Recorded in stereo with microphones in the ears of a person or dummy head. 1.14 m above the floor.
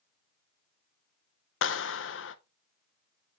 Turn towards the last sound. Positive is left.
turn(degrees=60)  # may be behind; listen again after turning